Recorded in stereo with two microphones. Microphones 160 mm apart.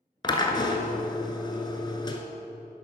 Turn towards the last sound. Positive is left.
turn(degrees=30)  # may be behind; listen again after turning